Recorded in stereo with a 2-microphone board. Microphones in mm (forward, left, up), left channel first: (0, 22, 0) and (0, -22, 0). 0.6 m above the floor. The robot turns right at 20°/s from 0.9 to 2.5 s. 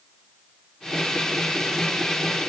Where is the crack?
I don't hear a crack.